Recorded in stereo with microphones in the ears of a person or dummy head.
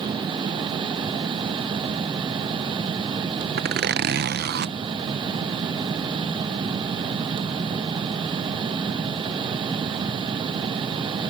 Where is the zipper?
55° right (ahead or behind).